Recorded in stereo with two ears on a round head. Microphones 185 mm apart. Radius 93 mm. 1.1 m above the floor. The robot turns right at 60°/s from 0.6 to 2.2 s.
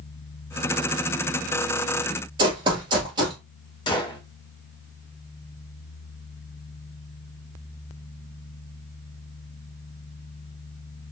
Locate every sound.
2.4 s running footsteps: 25° right (ahead or behind), 1.1 m
3.9 s a gunshot: 25° left (ahead or behind), 0.7 m